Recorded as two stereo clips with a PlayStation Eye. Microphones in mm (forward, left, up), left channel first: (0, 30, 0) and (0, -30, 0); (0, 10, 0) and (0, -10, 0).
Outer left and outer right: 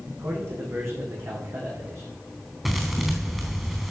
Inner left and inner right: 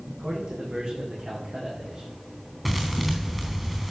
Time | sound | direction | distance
0.2 | a man speaking | 45° right (ahead or behind) | 6.5 m
2.6 | a thud | 5° right (ahead or behind) | 3.5 m